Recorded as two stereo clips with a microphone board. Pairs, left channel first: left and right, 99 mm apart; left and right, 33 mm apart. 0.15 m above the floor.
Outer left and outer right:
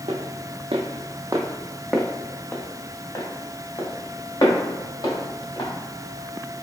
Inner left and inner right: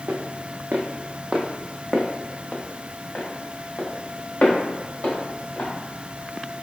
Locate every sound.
0.1 s footsteps: 85° right, 0.8 m; by 5.7 s 40° left (ahead or behind), 2.5 m